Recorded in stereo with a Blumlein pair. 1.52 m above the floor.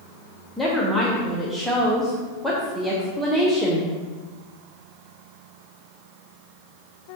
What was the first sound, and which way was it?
A woman speaking, 10° right.